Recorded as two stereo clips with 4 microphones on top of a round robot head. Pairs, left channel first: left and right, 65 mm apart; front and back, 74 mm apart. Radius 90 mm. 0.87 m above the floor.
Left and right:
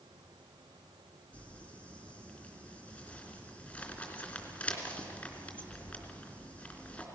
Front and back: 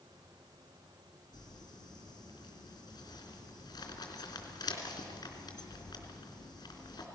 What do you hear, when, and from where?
1.3 s crumpling: 25° left, 3.5 m